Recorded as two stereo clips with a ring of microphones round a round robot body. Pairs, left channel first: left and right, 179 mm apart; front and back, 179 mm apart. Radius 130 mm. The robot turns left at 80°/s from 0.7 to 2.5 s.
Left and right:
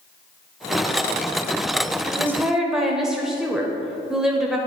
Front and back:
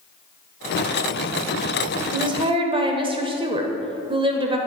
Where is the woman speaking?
145° right, 1.4 m; by 4.6 s 175° right, 1.4 m.